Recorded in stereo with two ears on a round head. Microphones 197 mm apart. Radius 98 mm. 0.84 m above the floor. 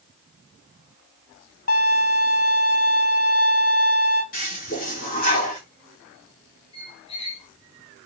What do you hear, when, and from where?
1.7 s a violin: 40° left (ahead or behind), 0.7 m
4.3 s a toilet flushing: 40° left (ahead or behind), 1.7 m
6.7 s a squeak: 25° left (ahead or behind), 1.2 m